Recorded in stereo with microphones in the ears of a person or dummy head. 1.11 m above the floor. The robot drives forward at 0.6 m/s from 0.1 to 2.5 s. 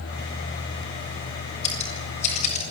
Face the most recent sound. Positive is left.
turn(degrees=45)  # may be behind; listen again after turning